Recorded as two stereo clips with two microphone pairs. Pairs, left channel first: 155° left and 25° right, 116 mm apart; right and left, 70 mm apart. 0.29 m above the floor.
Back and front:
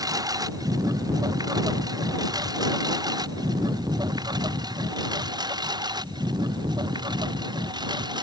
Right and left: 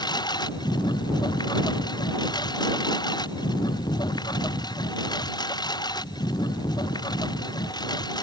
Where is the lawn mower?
80° right; by 8.2 s 75° right.